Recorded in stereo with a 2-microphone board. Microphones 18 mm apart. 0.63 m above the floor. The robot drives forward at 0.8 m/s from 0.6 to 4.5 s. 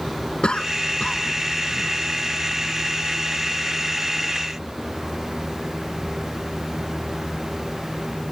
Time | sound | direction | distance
0.4 | a cough | 65° left (ahead or behind) | ?